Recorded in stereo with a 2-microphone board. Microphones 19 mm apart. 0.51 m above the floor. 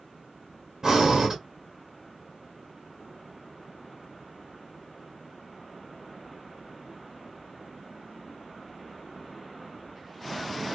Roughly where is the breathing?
Right.